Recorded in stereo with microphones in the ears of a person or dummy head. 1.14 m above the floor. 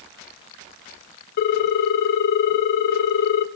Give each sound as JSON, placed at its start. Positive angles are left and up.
{"t": 1.4, "sound": "a ringtone", "side_deg": 55, "distance_m": 0.7}